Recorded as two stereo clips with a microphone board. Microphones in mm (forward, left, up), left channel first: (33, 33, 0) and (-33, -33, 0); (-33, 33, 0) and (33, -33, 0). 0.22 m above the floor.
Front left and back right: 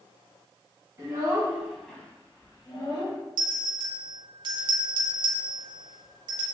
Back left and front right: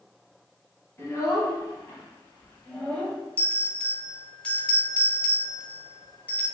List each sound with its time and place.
1.0 s a child speaking: 175° right, 1.2 m; by 3.2 s 60° left, 1.5 m
3.4 s a bell: 155° right, 0.6 m